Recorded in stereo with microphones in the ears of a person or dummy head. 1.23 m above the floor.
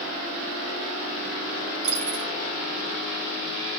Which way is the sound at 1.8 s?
55° right (ahead or behind).